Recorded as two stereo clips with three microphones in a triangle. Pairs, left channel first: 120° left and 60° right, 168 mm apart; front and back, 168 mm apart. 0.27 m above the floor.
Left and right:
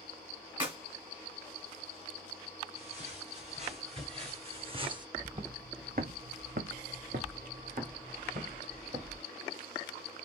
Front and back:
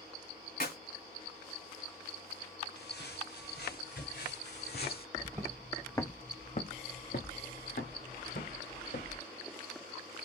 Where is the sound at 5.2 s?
120° right, 0.7 m; by 9.2 s 15° right, 2 m.